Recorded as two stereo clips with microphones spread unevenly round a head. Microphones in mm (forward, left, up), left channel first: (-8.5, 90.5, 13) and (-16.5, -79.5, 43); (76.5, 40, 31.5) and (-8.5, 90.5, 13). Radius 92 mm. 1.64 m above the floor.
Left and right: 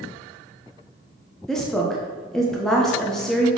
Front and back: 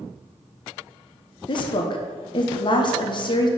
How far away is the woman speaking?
About 0.9 m.